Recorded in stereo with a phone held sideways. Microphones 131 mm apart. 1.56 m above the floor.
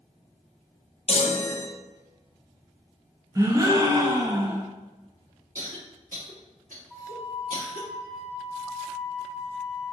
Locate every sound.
1.1 s a chime: 50° left (ahead or behind), 0.6 m
3.4 s a gasp: 25° right (ahead or behind), 0.6 m
5.5 s a cough: 80° right, 1.5 m
6.9 s a flute: 10° right (ahead or behind), 0.9 m